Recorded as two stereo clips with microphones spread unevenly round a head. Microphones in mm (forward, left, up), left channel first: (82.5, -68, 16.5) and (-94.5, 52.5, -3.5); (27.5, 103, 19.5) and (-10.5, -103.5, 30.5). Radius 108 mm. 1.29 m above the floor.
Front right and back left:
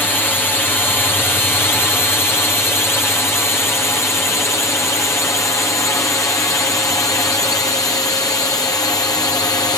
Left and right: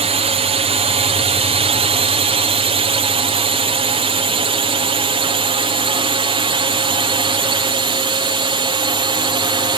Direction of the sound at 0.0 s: 120° right.